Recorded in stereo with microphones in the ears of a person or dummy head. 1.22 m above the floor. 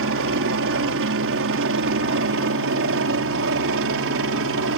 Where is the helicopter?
60° right (ahead or behind).